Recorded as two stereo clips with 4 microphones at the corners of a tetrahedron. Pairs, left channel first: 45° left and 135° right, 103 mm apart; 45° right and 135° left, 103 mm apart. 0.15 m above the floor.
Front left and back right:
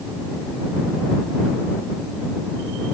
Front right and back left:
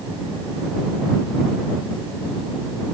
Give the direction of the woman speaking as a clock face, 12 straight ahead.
I don't hear a woman speaking.